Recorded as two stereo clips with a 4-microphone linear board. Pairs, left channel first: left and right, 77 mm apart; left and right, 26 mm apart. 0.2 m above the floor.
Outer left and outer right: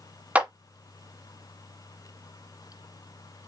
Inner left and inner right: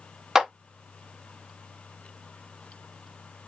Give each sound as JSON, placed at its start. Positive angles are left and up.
{"t": 0.3, "sound": "a clap", "side_deg": -20, "distance_m": 1.1}